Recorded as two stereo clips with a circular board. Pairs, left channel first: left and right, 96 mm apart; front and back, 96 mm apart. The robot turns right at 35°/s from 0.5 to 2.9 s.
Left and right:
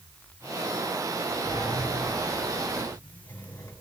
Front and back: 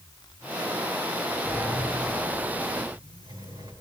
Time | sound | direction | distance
1.4 | a sliding door | 95° left | 3 m